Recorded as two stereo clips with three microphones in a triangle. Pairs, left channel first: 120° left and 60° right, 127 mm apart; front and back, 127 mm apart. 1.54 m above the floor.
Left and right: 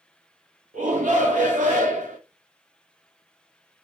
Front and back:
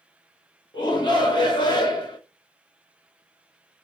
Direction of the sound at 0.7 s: 55° right.